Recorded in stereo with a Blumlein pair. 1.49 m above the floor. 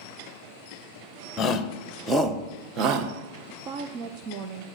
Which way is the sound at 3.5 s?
35° right.